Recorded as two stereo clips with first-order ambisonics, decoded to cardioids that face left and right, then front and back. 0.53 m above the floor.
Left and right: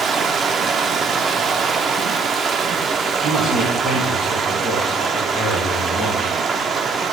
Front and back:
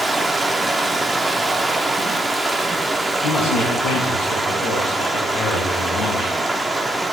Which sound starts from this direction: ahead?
A man speaking, at 3.2 s.